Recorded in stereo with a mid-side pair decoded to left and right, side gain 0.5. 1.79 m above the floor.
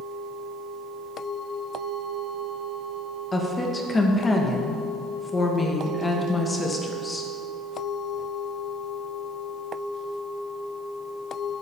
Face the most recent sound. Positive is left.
turn(degrees=20)